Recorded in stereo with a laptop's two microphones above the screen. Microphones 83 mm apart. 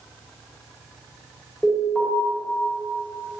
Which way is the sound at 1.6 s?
15° left (ahead or behind).